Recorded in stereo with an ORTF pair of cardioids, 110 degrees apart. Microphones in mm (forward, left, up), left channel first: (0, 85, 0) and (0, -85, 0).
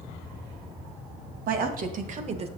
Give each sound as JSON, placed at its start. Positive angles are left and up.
{"t": 1.5, "sound": "a woman speaking", "azimuth_deg": -65, "distance_m": 1.9}